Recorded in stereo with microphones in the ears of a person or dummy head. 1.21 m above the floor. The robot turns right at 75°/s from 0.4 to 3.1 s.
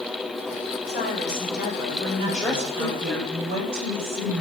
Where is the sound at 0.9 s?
130° left, 4 m; by 3.2 s 65° right, 4 m.